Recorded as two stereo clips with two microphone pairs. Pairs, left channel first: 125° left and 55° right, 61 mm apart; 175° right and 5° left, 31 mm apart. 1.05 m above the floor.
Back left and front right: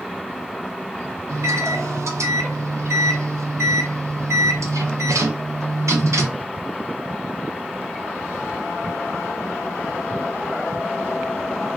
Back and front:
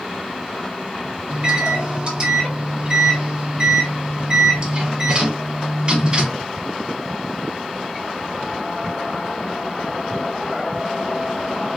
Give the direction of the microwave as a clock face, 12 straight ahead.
1 o'clock.